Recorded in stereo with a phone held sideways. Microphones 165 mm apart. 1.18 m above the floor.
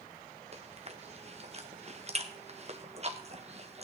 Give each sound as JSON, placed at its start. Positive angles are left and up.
{"t": 0.5, "sound": "chewing", "side_deg": -40, "distance_m": 1.2}